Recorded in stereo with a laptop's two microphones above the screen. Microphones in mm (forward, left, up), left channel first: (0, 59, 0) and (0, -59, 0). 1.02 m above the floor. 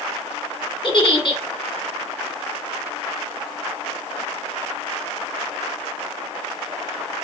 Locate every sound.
0.8 s a giggle: 45° left (ahead or behind), 1.6 m